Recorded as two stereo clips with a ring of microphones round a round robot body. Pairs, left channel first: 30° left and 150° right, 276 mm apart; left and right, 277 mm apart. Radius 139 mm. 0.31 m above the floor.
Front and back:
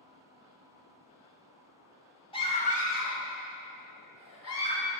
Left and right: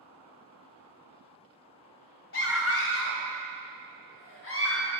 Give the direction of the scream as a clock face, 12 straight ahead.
9 o'clock.